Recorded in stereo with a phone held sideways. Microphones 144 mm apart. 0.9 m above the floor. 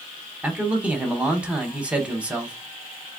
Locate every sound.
0.4 s a man speaking: 10° right (ahead or behind), 1.0 m